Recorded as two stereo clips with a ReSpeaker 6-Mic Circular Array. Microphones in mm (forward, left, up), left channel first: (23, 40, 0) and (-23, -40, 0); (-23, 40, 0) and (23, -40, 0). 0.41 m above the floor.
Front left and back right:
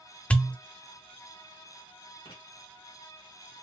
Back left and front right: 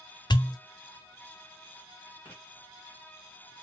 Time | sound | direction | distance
0.3 | a pop | 135° left | 0.5 m
2.2 | writing | 50° left | 2.5 m